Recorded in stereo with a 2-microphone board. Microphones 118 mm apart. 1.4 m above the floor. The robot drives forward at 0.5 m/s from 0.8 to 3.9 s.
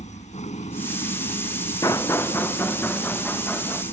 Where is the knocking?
30° left (ahead or behind); by 3.8 s 10° left (ahead or behind).